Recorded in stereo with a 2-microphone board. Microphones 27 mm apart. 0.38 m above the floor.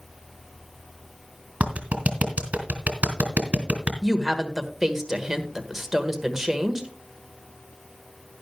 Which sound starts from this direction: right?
A clap, at 1.6 s.